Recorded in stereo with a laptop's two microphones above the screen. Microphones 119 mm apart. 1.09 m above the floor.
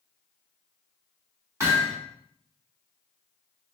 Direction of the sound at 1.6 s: 25° right (ahead or behind).